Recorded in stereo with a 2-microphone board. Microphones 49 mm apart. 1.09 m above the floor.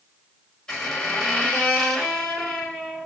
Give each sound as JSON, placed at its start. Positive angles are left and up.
{"t": 0.7, "sound": "a squeak", "side_deg": 15, "distance_m": 1.4}